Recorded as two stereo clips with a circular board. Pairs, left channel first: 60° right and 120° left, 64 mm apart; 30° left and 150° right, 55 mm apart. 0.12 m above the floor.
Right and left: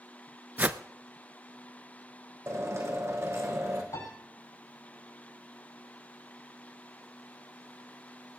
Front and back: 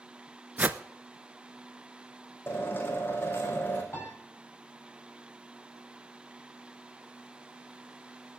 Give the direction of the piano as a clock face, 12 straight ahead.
1 o'clock.